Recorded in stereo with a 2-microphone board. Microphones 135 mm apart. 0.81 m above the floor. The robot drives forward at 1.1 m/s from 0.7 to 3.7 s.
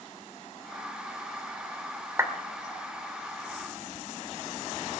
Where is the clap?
20° right (ahead or behind), 1.7 m.